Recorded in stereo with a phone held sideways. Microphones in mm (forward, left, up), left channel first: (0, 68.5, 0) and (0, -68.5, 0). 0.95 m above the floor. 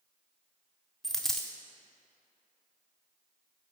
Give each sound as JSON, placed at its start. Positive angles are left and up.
{"t": 1.0, "sound": "a dropped coin", "side_deg": 5, "distance_m": 0.6}